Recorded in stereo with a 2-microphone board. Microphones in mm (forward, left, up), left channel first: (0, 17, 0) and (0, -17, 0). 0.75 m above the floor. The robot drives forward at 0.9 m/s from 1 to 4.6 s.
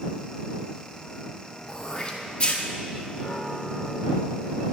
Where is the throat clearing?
25° left (ahead or behind), 2 m; by 2.6 s 40° left (ahead or behind), 1.4 m.